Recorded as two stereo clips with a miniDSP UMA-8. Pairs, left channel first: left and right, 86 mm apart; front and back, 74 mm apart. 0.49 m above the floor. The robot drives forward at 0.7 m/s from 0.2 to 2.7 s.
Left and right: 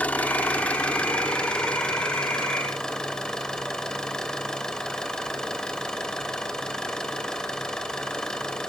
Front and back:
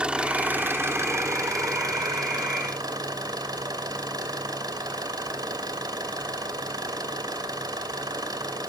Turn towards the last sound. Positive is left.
turn(degrees=170)